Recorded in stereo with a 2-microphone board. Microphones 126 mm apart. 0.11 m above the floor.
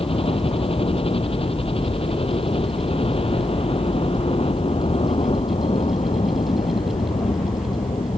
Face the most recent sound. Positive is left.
turn(degrees=45)  # may be behind; listen again after turning